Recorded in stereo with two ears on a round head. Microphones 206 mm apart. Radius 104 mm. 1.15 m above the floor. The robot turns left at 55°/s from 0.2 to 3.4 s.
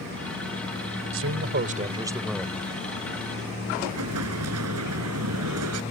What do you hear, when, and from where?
1.1 s a man speaking: 110° right; by 2.7 s 160° left
3.8 s an explosion: 75° right (ahead or behind)